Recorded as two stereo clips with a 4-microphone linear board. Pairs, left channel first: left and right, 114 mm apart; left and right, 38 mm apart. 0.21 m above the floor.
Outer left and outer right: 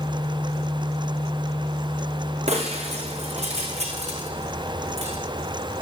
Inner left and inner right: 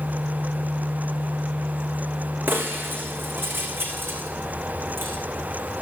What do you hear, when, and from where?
2.5 s breaking glass: 75° right (ahead or behind), 7 m